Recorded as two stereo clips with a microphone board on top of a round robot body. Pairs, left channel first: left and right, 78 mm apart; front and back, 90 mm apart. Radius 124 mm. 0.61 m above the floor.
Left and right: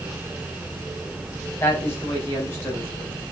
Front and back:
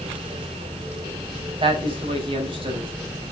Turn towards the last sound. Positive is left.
turn(degrees=155)